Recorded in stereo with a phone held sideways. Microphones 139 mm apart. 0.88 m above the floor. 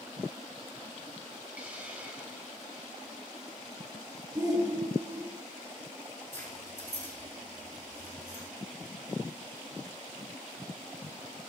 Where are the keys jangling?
15° left (ahead or behind), 8.5 m.